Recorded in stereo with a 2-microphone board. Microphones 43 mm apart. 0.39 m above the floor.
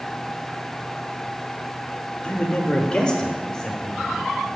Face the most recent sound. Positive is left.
turn(degrees=15)  # may be behind; listen again after turning